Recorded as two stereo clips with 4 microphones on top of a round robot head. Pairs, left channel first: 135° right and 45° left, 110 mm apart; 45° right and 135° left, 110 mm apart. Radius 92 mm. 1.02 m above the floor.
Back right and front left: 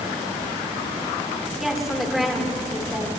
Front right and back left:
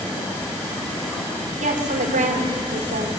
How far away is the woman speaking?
About 4 m.